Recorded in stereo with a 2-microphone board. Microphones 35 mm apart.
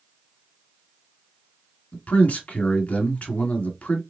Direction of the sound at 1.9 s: 45° left (ahead or behind).